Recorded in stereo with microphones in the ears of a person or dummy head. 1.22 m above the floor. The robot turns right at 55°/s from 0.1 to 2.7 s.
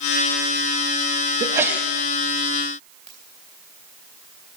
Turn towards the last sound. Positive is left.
turn(degrees=5)  # may be behind; listen again after turning